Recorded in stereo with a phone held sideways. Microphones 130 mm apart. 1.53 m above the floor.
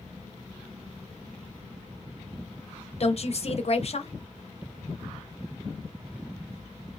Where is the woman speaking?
55° left (ahead or behind), 0.6 m.